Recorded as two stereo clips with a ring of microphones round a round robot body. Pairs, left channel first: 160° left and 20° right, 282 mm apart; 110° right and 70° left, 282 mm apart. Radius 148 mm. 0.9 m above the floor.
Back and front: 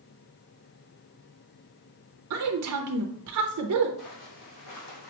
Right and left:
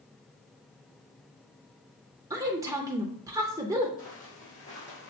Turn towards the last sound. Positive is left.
turn(degrees=180)